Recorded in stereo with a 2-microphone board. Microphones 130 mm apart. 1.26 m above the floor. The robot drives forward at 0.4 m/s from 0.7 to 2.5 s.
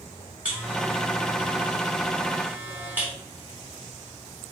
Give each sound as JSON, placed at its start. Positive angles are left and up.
{"t": 0.5, "sound": "a buzzer", "side_deg": -10, "distance_m": 2.0}